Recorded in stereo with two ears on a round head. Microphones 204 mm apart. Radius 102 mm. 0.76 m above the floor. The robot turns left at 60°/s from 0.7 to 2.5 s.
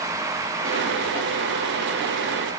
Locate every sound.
Only background noise.